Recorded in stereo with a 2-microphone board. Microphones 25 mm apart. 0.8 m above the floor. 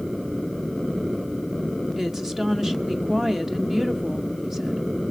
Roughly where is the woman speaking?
Centre.